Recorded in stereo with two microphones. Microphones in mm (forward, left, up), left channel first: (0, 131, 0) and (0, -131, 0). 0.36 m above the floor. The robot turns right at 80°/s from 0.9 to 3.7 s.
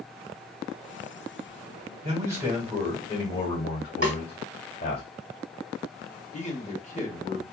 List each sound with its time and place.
2.0 s a man speaking: 45° right, 1.3 m; by 5.0 s 90° left, 1.3 m
4.0 s a snare drum: 65° right (ahead or behind), 0.7 m
6.3 s a man speaking: 25° left (ahead or behind), 0.9 m